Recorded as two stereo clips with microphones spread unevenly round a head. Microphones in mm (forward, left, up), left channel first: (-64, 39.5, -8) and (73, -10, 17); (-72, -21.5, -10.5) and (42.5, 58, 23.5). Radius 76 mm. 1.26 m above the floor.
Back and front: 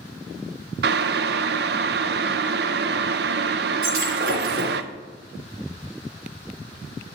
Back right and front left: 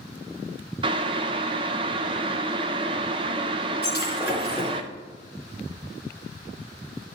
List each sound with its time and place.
0.8 s boiling: 20° right, 0.6 m
3.8 s breaking glass: 40° right, 3.5 m